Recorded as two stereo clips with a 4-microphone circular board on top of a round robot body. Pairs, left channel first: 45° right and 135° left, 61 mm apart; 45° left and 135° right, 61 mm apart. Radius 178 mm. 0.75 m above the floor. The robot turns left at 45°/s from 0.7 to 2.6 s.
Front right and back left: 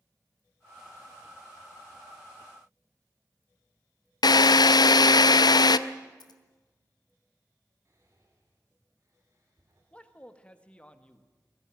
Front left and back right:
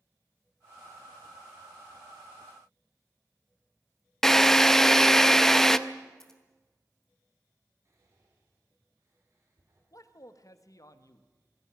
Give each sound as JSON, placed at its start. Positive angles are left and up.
{"t": 4.2, "sound": "a drill", "azimuth_deg": -40, "distance_m": 0.6}
{"t": 6.2, "sound": "scissors", "azimuth_deg": -40, "distance_m": 1.1}
{"t": 7.8, "sound": "whispering", "azimuth_deg": 180, "distance_m": 3.0}
{"t": 9.9, "sound": "a man speaking", "azimuth_deg": 25, "distance_m": 1.6}